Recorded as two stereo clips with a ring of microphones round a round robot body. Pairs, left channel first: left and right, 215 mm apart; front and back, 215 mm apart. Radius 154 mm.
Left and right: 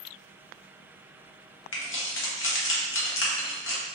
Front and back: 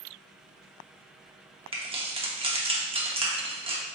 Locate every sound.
1.7 s keys jangling: 115° left, 0.9 m